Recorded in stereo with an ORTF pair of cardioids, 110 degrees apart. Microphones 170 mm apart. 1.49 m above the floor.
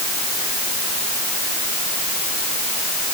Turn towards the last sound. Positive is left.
No sound to turn to.